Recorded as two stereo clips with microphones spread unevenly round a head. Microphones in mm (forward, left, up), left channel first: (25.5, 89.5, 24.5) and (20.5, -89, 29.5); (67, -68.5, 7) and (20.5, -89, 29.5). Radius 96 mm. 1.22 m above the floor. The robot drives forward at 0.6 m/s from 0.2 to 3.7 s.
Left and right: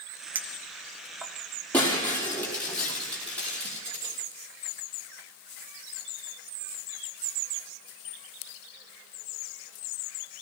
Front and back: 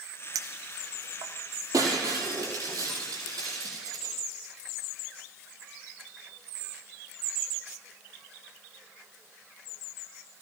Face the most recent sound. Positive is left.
turn(degrees=170)